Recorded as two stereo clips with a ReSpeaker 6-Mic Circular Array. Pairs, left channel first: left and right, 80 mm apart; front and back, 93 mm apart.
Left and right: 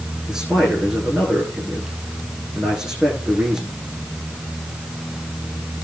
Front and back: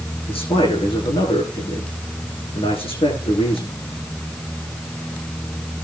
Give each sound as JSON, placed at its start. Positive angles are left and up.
{"t": 0.3, "sound": "a man speaking", "azimuth_deg": -5, "distance_m": 9.5}